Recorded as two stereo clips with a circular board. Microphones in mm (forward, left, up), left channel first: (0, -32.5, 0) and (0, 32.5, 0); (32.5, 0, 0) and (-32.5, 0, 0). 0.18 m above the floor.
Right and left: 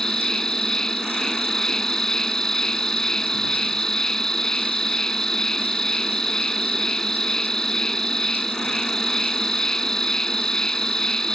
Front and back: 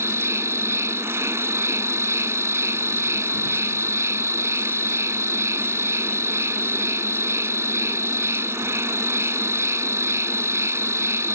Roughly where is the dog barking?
No dog barking in this recording.